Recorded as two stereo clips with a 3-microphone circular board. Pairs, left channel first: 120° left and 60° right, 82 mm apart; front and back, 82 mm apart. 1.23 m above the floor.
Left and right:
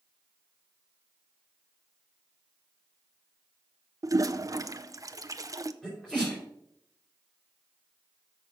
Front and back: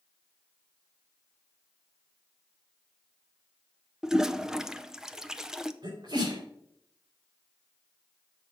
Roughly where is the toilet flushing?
Right.